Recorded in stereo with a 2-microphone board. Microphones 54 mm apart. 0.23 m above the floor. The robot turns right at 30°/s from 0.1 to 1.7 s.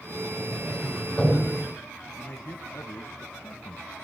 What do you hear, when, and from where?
0.4 s a sliding door: 40° left (ahead or behind), 8.5 m; by 1.7 s centre (ahead or behind), 8.5 m
2.2 s a man speaking: 45° left (ahead or behind), 1.3 m